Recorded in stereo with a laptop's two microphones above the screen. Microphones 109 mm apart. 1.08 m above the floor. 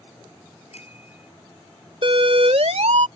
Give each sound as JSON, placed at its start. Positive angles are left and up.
{"t": 0.7, "sound": "a bicycle bell", "side_deg": 75}
{"t": 2.0, "sound": "a siren", "side_deg": -55}